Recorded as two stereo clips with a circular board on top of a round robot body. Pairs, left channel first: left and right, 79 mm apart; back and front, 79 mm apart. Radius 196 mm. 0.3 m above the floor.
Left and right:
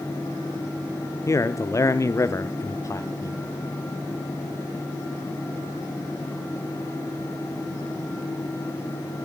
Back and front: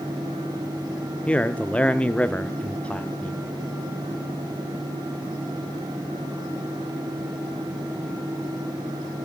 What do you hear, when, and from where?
1.3 s a man speaking: 110° left, 1.3 m